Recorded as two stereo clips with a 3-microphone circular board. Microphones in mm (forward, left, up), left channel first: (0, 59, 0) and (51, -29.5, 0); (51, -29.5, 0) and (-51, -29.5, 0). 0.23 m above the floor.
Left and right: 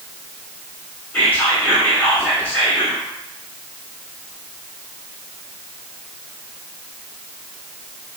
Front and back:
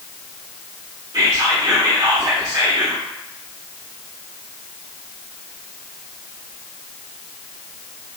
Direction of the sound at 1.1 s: Straight behind.